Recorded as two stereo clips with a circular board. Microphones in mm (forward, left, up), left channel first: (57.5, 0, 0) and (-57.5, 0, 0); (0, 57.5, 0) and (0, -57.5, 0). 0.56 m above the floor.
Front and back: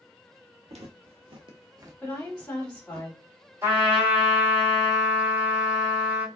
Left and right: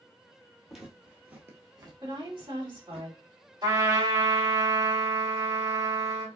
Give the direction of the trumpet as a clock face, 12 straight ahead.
4 o'clock.